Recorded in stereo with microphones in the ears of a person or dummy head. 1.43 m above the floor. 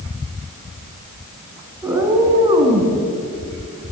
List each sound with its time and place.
1.8 s a cat meowing: 10° right (ahead or behind), 3.5 m; by 3.0 s 35° right (ahead or behind), 3 m